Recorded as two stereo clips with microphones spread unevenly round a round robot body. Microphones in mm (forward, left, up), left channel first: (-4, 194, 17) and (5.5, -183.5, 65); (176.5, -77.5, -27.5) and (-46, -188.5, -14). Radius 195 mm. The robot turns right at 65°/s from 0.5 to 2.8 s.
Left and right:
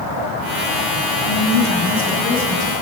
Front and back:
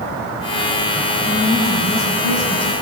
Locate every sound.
1.2 s a woman speaking: 120° left, 4.5 m; by 2.7 s 145° right, 4.5 m